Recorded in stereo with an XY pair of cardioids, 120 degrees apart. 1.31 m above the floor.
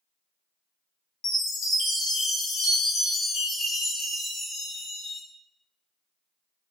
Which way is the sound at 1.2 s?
60° left.